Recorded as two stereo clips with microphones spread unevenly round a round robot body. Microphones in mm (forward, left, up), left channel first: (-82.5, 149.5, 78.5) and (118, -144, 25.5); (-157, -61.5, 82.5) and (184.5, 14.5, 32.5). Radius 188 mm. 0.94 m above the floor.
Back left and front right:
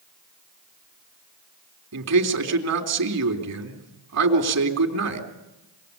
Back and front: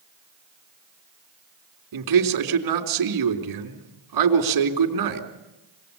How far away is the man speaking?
About 3.5 m.